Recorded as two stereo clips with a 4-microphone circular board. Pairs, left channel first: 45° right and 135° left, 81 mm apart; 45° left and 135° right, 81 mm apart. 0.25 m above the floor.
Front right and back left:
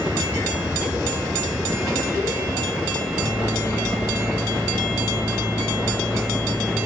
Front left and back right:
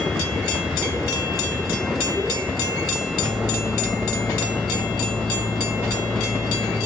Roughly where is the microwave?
Ahead left.